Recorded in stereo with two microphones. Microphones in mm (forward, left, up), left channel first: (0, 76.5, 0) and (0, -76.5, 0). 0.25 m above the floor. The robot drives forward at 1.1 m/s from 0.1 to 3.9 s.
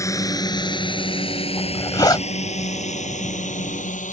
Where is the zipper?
25° left (ahead or behind).